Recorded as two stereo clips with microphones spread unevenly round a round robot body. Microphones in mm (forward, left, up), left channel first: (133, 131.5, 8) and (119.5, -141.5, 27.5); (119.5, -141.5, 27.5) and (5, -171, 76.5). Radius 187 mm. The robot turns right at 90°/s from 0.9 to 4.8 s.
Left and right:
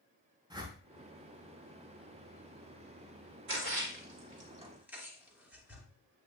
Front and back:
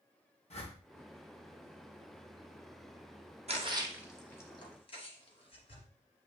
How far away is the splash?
About 2 m.